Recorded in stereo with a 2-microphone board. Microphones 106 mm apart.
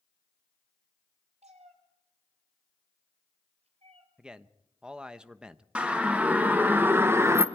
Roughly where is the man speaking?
Centre.